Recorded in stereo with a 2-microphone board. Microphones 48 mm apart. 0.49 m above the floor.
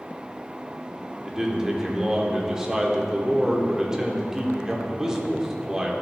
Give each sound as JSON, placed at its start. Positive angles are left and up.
{"t": 1.2, "sound": "a man speaking", "side_deg": -15, "distance_m": 1.0}